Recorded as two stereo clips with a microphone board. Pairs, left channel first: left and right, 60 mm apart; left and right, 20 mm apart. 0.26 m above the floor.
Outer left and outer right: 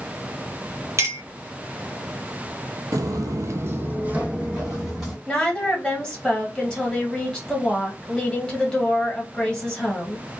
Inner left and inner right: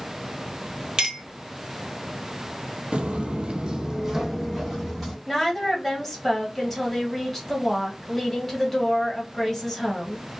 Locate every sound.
1.0 s a clink: 50° right (ahead or behind), 1.1 m
2.9 s footsteps: 60° right (ahead or behind), 0.5 m; by 5.2 s 10° right (ahead or behind), 1.4 m
5.3 s a woman speaking: 15° left (ahead or behind), 1.3 m